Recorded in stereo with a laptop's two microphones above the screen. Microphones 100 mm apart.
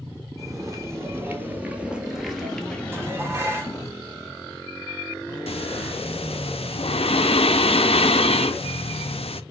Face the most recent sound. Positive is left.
turn(degrees=75)  # may be behind; listen again after turning